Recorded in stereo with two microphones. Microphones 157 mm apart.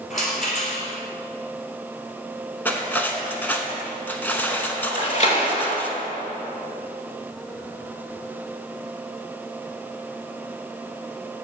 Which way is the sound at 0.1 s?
55° left (ahead or behind).